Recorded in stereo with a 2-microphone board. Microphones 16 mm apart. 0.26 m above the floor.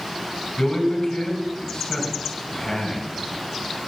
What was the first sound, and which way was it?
A man speaking, 55° left (ahead or behind).